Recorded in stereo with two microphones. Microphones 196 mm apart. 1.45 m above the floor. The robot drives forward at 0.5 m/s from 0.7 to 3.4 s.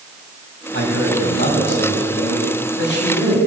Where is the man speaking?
85° left, 7.5 m; by 3.4 s 80° left, 7.5 m.